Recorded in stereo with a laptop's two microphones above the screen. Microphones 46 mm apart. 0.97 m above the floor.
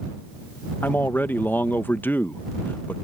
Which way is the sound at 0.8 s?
50° left (ahead or behind).